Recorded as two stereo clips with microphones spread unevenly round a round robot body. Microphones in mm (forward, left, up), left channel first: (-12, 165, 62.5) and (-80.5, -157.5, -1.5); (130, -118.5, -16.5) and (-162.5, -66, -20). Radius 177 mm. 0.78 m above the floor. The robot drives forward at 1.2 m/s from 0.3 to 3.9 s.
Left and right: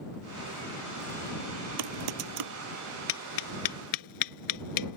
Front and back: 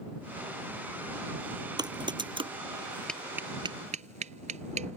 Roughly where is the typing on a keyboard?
Behind right.